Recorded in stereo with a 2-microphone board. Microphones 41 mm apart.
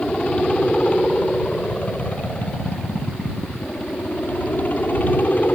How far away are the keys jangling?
I don't hear keys jangling.